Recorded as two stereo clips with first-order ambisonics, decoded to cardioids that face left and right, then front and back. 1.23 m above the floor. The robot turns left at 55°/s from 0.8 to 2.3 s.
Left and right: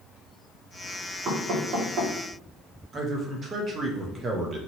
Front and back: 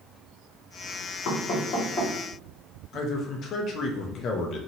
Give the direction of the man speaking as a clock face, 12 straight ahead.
1 o'clock.